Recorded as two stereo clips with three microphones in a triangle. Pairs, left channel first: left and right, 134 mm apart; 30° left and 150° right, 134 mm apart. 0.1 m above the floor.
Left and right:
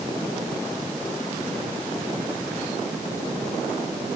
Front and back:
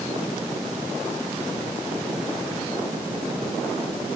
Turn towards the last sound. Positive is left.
No sound to turn to.